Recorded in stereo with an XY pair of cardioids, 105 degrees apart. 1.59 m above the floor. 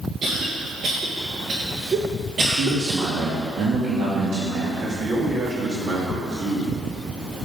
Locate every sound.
0.2 s a cough: 50° right, 1.6 m
2.5 s a man speaking: 65° right, 2.5 m
4.8 s a man speaking: 45° right, 3.5 m